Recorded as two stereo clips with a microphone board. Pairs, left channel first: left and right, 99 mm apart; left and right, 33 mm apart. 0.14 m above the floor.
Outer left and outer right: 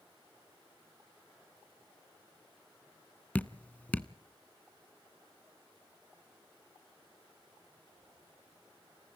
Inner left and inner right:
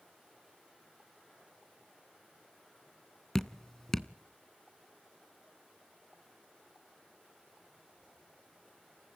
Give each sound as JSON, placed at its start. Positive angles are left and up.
{"t": 3.4, "sound": "dripping", "side_deg": 15, "distance_m": 0.6}